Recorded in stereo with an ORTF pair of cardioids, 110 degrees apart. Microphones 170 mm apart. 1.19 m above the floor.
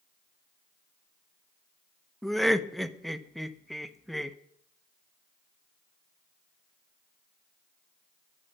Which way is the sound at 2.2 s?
Straight ahead.